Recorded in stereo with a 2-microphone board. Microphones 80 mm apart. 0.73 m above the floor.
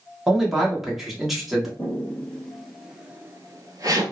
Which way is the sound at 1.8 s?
20° left (ahead or behind).